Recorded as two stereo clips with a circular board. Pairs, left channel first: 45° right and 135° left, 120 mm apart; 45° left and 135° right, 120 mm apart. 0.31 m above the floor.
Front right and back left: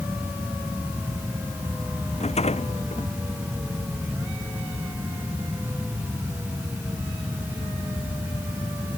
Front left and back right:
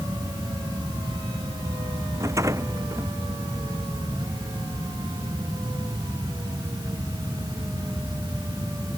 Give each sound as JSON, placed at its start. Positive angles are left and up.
{"t": 2.2, "sound": "a rattle", "azimuth_deg": -70}